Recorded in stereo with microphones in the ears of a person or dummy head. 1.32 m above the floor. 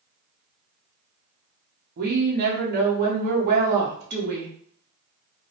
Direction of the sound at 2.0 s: 45° right (ahead or behind).